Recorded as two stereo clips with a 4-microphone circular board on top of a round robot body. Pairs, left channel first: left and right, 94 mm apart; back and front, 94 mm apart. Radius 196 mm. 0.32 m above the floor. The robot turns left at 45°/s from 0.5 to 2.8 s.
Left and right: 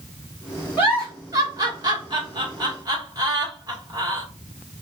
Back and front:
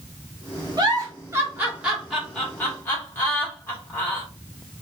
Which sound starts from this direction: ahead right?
A giggle, at 0.8 s.